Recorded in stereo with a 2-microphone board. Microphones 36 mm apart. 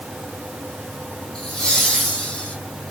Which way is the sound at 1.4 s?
25° left (ahead or behind).